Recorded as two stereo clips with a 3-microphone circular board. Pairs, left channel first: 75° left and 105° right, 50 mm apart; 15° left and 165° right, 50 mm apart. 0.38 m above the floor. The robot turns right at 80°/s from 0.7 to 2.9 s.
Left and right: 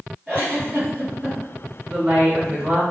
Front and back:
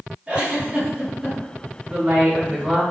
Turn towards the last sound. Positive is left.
turn(degrees=-110)